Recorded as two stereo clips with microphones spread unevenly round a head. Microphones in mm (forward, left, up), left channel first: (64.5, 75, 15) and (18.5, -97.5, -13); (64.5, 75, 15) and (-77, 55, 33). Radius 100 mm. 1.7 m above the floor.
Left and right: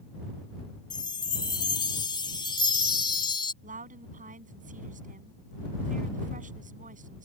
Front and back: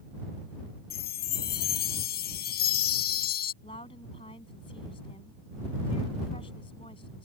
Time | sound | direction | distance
0.9 | a chime | 15° left | ?
3.6 | a woman speaking | 60° right | ?